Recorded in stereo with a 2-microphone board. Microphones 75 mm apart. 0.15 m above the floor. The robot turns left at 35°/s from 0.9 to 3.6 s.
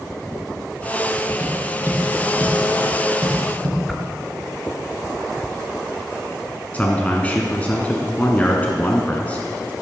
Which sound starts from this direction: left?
A man speaking, at 6.7 s.